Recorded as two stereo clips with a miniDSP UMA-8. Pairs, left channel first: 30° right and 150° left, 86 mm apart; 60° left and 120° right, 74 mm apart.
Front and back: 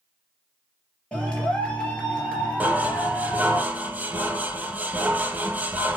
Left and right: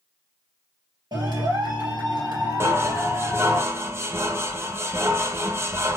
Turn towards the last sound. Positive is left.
turn(degrees=-150)